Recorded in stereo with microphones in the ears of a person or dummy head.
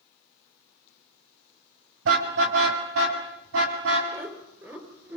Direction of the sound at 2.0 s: 75° right (ahead or behind).